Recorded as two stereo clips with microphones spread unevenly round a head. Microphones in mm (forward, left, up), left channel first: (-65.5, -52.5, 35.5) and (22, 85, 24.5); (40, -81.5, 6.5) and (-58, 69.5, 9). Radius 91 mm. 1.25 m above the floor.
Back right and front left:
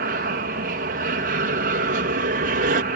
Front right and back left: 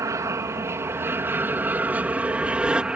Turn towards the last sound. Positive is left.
turn(degrees=40)